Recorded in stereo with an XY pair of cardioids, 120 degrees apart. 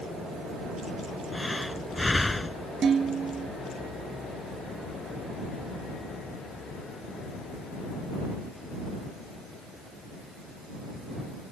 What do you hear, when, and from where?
1.3 s breathing: 10° left
2.8 s dishes clattering: 40° right